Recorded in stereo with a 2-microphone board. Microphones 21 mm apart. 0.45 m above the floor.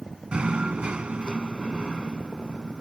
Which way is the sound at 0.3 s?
60° right (ahead or behind).